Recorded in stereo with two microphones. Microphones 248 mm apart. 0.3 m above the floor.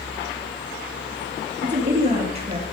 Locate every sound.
1.6 s a woman speaking: 30° right (ahead or behind), 5 m; by 2.6 s 25° right (ahead or behind), 4.5 m